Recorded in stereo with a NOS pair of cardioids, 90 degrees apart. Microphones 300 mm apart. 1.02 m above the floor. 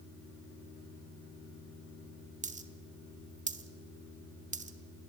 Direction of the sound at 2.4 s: 25° right.